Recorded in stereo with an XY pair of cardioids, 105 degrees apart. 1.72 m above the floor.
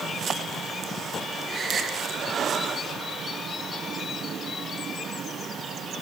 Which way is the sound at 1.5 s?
40° right.